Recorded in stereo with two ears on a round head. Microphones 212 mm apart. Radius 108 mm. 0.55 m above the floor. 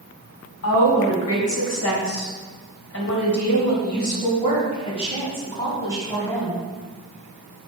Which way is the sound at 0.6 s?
75° left (ahead or behind).